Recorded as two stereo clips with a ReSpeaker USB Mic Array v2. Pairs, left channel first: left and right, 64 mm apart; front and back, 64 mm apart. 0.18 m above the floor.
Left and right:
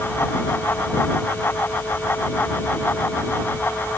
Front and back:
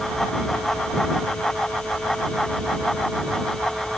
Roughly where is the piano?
I don't hear a piano.